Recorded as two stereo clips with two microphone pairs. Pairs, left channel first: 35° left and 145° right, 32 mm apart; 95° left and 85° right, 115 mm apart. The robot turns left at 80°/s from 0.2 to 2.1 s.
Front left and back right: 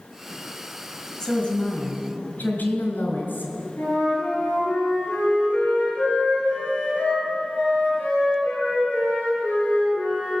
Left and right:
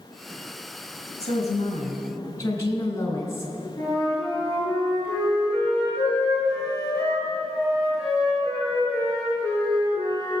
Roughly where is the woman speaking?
Left.